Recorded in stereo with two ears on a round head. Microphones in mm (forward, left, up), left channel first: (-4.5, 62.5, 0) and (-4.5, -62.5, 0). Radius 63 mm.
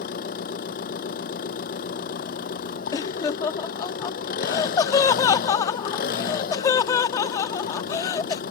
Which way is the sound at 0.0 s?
70° left (ahead or behind).